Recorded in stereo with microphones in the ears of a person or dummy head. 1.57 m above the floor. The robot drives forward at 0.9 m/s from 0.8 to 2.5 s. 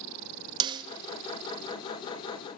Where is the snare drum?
25° right (ahead or behind), 0.5 m; by 0.8 s 30° right (ahead or behind), 0.5 m.